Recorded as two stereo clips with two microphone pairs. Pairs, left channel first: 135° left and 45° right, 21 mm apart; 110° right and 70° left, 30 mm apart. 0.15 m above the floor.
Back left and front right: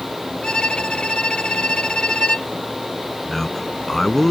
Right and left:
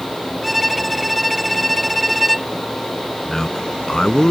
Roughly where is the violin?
Behind.